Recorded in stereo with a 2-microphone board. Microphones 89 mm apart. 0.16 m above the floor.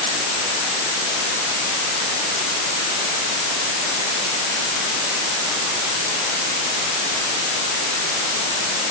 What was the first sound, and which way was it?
Only background noise.